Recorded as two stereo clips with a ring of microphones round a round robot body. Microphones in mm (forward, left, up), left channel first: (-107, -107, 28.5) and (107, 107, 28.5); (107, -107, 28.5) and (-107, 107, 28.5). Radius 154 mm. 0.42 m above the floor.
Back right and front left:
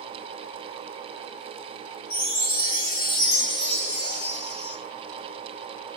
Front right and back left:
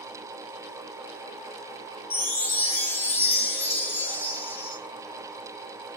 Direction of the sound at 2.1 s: 130° right.